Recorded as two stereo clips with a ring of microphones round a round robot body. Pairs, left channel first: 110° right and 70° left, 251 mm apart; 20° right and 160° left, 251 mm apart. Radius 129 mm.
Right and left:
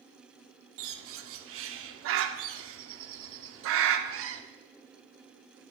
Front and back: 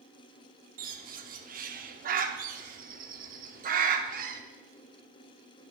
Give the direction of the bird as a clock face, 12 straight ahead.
9 o'clock.